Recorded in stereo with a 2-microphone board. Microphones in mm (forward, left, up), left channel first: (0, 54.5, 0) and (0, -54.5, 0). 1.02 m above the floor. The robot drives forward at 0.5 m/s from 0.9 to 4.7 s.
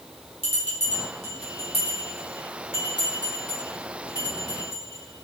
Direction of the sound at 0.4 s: 75° left (ahead or behind).